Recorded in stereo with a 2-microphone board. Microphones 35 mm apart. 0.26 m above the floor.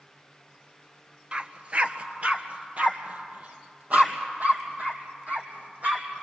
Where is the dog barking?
30° right (ahead or behind), 0.9 m; by 6.2 s 50° right (ahead or behind), 3.5 m.